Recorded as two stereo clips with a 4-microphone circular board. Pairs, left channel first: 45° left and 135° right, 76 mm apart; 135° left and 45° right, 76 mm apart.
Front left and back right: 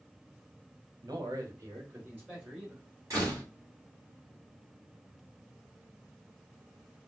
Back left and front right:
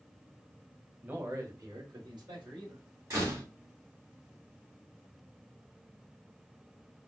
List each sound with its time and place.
1.0 s a man speaking: 115° right, 1.2 m; by 2.8 s 65° right, 3 m
3.1 s a door slam: 90° right, 2.5 m